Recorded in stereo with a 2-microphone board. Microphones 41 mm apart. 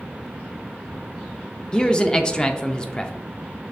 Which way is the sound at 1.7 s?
25° left (ahead or behind).